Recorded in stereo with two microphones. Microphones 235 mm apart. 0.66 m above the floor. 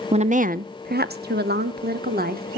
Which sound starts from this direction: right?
A woman speaking, at 0.1 s.